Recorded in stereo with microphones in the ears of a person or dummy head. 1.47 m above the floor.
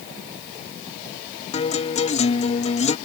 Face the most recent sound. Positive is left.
turn(degrees=30)  # may be behind; listen again after turning